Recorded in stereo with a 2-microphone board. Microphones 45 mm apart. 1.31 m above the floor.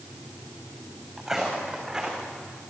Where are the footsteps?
10° right (ahead or behind), 5 m; by 2.3 s 20° right (ahead or behind), 4.5 m.